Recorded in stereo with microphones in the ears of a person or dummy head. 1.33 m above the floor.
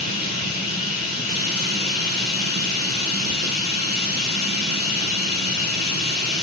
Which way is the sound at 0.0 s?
50° left (ahead or behind).